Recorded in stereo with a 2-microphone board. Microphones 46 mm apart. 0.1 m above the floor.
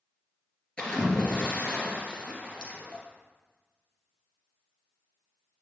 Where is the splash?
25° left (ahead or behind), 2 m.